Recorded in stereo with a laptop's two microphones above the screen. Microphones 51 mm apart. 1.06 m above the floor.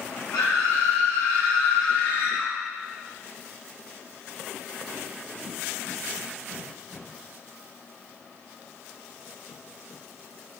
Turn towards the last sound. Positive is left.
turn(degrees=60)  # may be behind; listen again after turning